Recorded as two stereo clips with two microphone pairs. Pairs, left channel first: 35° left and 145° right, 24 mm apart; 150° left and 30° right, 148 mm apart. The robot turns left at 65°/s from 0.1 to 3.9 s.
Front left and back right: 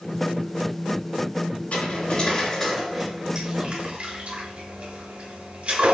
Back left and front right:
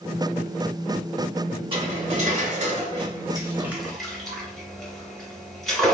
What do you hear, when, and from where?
1.7 s cutlery clinking: 15° left, 1.0 m; by 6.0 s 130° right, 1.0 m